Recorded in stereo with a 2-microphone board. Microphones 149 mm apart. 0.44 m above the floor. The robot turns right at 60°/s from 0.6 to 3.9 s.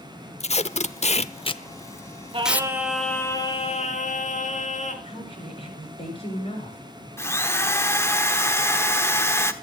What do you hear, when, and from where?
0.4 s tape being pulled: 50° left (ahead or behind), 0.6 m; by 2.7 s 15° right (ahead or behind), 0.6 m
2.3 s singing: 40° right, 2 m; by 4.9 s 55° left, 2 m
5.0 s a woman speaking: 40° left (ahead or behind), 8 m
7.2 s a drill: 20° left (ahead or behind), 1.1 m